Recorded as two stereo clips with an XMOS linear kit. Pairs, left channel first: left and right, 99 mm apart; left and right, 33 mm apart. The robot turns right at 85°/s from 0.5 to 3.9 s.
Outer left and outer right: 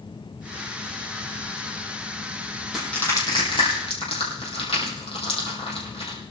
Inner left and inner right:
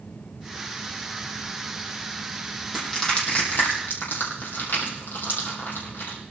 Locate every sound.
2.7 s crushing: 5° right (ahead or behind), 5.5 m; by 6.2 s 80° left, 5.5 m